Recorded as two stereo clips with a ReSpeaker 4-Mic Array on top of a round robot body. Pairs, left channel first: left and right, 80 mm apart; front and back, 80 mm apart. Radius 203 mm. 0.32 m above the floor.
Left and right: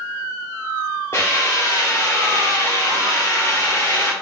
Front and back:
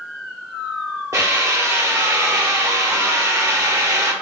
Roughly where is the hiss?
Behind left.